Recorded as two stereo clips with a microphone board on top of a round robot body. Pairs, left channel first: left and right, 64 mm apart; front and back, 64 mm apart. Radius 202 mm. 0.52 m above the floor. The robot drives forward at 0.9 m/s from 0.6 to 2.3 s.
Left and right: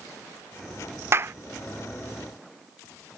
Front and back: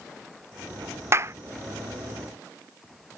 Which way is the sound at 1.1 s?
140° right.